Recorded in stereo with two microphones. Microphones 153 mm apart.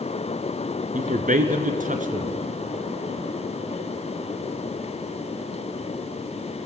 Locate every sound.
0.9 s a man speaking: 60° right (ahead or behind), 2.5 m